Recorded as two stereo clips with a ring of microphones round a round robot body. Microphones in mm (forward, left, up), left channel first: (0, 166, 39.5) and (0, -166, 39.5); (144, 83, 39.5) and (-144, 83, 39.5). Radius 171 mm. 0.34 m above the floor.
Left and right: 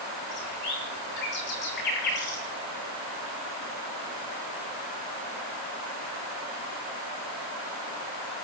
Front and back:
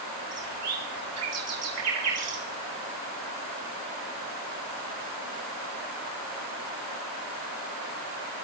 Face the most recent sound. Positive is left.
turn(degrees=150)